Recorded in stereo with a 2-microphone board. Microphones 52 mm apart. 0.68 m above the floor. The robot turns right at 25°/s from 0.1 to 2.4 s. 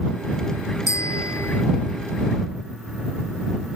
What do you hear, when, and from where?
0.9 s a bicycle bell: 85° left; by 1.6 s 75° left (ahead or behind)